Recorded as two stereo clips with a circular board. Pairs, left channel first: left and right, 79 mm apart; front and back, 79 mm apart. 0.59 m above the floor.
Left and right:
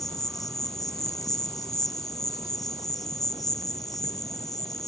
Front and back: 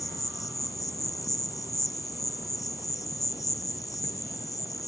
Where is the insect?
45° left.